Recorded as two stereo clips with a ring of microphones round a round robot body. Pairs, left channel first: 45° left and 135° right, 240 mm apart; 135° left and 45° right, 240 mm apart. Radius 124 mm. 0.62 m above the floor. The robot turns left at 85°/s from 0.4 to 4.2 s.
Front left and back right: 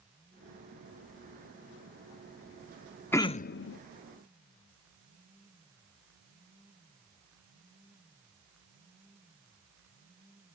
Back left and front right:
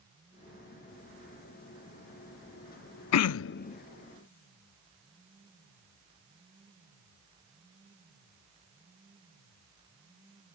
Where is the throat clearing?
125° left; by 3.8 s 70° left.